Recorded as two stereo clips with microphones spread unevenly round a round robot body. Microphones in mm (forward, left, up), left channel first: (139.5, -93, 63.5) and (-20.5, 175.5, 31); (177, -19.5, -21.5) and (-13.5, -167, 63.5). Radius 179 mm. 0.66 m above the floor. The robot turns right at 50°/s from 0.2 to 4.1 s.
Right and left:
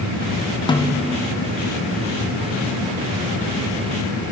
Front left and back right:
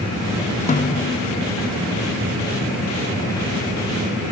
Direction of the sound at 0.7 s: 20° left.